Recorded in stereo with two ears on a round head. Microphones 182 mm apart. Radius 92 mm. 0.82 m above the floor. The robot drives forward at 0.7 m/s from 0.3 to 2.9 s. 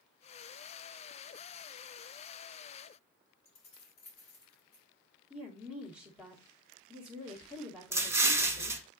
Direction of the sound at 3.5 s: 35° left (ahead or behind).